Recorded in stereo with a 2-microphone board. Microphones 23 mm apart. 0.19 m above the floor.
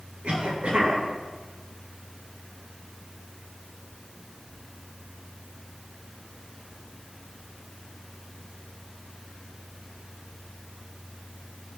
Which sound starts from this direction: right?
A cough, at 0.2 s.